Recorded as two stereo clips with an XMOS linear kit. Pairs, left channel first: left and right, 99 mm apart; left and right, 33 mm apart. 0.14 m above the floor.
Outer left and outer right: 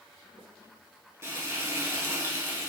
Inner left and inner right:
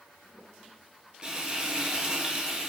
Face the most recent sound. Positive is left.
turn(degrees=-25)  # may be behind; listen again after turning